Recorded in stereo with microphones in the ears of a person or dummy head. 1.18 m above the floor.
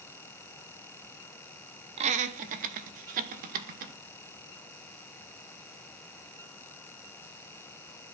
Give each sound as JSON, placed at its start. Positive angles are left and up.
{"t": 2.0, "sound": "laughter", "side_deg": -35, "distance_m": 0.6}